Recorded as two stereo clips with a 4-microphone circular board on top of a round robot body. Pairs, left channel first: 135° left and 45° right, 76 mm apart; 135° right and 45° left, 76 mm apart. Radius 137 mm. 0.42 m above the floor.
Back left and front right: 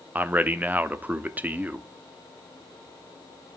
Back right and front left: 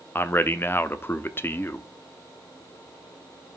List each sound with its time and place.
0.1 s a man speaking: 95° right, 1.0 m